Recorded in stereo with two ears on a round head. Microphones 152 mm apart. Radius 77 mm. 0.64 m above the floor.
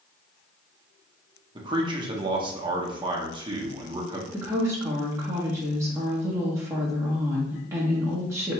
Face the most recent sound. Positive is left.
turn(degrees=-15)  # may be behind; listen again after turning